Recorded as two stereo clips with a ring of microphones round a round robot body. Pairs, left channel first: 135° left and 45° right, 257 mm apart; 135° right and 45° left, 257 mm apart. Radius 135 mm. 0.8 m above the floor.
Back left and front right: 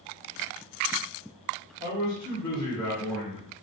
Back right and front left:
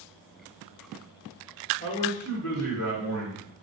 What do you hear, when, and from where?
1.8 s a man speaking: 175° left, 1.5 m; by 3.5 s 125° right, 1.6 m